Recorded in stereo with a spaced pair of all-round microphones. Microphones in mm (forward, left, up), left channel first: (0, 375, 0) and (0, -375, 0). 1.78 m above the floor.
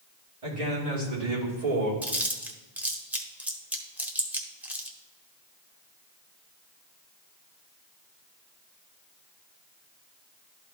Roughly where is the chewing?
Centre.